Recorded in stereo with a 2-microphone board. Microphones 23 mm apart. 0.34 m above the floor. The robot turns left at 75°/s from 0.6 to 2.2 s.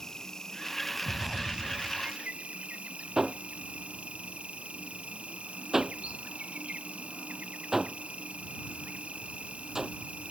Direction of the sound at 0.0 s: 20° left.